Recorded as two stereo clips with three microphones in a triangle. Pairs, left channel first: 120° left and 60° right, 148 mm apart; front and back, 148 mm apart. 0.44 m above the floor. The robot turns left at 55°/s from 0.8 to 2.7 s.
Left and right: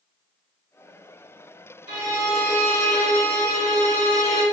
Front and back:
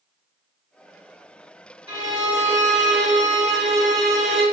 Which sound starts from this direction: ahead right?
A violin, at 1.9 s.